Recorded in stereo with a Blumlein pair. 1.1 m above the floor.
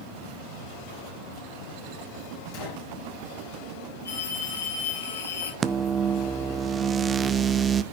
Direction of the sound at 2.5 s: 50° left.